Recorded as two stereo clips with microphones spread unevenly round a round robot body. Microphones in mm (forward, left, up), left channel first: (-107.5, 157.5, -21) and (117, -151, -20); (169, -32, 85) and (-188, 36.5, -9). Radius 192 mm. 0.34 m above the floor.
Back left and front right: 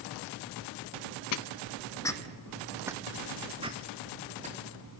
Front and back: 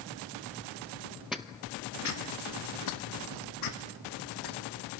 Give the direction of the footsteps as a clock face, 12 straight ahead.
9 o'clock.